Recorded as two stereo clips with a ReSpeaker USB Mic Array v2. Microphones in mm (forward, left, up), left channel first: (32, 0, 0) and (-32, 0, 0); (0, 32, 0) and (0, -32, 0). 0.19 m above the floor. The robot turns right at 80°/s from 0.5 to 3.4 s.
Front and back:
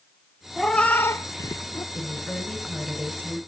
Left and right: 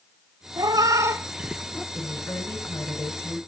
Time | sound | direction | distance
0.6 | a cat meowing | 90° right | 0.7 m
1.9 | a woman speaking | 25° left | 2.5 m